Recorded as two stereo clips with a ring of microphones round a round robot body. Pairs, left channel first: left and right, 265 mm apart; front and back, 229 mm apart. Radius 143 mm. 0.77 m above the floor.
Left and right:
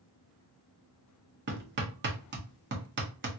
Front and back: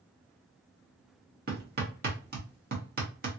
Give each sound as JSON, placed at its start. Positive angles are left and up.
{"t": 1.5, "sound": "hammering", "azimuth_deg": -135, "distance_m": 1.2}